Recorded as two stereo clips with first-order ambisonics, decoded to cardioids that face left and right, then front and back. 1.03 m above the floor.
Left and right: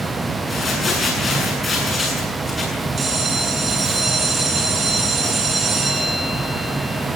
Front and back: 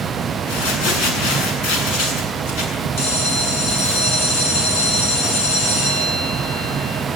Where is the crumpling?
15° left, 8 m.